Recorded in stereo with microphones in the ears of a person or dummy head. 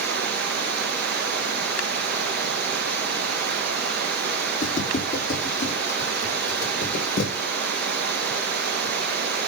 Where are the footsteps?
35° left (ahead or behind), 4 m; by 7.3 s 55° left (ahead or behind), 4 m.